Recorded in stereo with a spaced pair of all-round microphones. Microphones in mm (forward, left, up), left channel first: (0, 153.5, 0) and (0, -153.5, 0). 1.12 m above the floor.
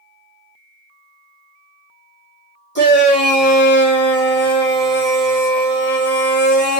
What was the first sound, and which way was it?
A shout, 35° left (ahead or behind).